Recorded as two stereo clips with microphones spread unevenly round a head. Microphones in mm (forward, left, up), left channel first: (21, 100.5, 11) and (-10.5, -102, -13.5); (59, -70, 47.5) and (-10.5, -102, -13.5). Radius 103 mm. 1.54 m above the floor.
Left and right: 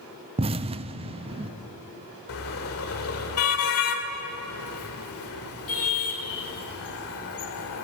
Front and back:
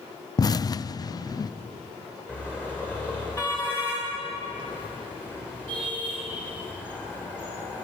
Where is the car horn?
85° left, 2.5 m.